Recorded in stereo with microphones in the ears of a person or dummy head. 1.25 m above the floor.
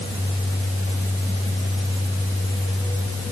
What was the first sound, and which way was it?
Only background noise.